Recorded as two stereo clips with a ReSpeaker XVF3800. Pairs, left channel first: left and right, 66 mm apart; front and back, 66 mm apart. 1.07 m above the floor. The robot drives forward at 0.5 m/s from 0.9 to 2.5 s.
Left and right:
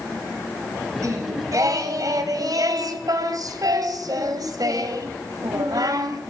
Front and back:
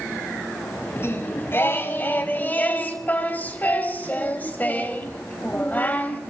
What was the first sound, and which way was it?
Singing, 50° right.